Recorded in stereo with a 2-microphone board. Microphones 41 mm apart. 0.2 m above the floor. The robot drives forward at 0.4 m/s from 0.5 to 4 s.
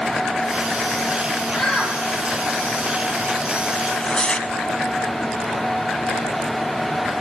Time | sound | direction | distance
1.5 | a shout | 10° left (ahead or behind) | 6.5 m
3.8 | tearing paper | 25° left (ahead or behind) | 0.8 m